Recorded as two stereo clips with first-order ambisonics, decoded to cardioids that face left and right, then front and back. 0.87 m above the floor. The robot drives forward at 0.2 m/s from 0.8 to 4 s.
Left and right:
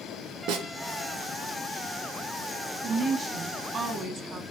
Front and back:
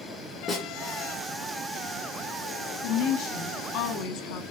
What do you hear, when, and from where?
0.5 s a snare drum: 75° right, 1.5 m
2.8 s a woman speaking: 25° right, 1.3 m; by 4.4 s 30° right, 1.1 m